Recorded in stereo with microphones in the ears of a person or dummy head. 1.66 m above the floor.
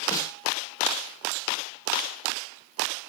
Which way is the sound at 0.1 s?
20° left (ahead or behind).